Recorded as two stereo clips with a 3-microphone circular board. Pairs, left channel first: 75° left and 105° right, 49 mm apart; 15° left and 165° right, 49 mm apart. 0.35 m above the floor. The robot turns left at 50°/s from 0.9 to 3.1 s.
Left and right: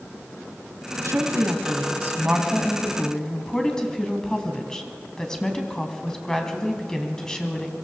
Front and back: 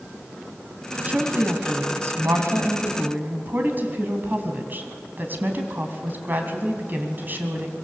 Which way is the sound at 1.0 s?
105° right.